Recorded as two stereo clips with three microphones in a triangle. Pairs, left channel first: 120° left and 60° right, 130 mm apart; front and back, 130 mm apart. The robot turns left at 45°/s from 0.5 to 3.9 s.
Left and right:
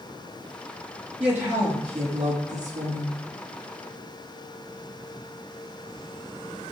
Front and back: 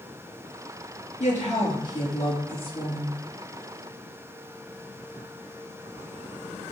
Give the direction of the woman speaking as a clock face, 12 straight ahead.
11 o'clock.